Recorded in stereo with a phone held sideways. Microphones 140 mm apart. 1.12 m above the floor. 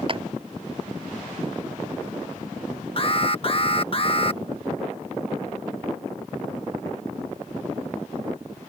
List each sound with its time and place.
0.1 s a clap: 40° right (ahead or behind)
3.0 s an alarm: 40° left (ahead or behind)